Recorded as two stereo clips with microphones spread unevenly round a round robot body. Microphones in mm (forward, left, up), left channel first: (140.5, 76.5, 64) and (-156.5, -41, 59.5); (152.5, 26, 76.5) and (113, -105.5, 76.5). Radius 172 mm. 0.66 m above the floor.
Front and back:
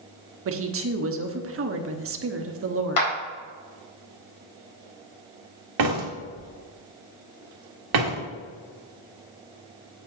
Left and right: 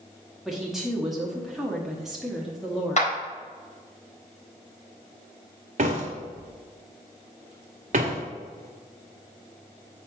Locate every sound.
0.5 s a woman speaking: 165° left, 1.0 m
3.0 s a clap: 45° left, 4 m
5.8 s a door slam: 150° right, 1.6 m